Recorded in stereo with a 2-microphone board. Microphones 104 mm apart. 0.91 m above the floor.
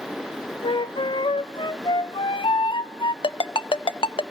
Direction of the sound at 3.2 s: 55° left (ahead or behind).